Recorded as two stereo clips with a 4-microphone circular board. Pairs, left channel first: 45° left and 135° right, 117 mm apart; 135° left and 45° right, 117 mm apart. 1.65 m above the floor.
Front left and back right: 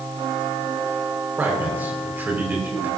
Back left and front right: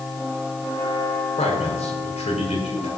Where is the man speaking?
150° left, 5.5 m.